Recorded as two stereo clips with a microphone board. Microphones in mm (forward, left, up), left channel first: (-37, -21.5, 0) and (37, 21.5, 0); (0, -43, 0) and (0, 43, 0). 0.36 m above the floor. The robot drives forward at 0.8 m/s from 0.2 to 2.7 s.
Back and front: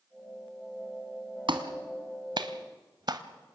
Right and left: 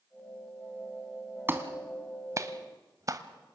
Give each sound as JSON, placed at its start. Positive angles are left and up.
{"t": 1.5, "sound": "a clap", "azimuth_deg": 25, "distance_m": 1.9}